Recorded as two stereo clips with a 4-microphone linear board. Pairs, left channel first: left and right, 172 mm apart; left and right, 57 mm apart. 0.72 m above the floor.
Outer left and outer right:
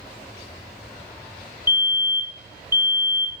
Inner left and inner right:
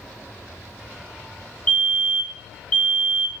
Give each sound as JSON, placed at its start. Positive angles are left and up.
{"t": 1.7, "sound": "a fire alarm", "side_deg": 25, "distance_m": 1.5}